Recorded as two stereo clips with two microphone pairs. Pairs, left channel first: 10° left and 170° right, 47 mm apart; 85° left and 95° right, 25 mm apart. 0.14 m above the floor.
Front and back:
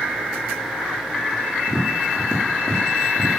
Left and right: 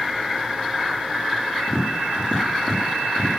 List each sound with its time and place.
1.7 s tapping: 70° left, 4.5 m